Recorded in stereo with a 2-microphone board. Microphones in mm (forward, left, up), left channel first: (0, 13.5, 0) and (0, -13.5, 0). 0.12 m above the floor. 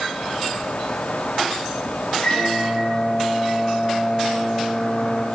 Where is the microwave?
50° left (ahead or behind), 3 m.